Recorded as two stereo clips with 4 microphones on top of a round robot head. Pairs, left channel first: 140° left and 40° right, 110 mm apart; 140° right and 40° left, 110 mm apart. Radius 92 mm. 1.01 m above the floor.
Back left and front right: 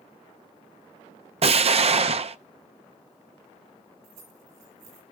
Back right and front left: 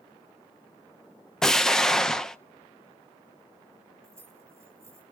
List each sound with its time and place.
1.4 s an explosion: 55° right, 0.6 m
4.0 s keys jangling: 30° right, 7 m